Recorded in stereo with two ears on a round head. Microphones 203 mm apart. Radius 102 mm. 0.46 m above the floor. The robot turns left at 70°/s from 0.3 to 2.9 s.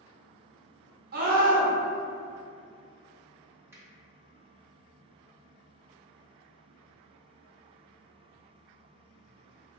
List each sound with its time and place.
1.1 s a scream: 90° right, 1.0 m; by 1.7 s 130° right, 1.0 m
3.7 s a finger snap: 10° right (ahead or behind), 0.7 m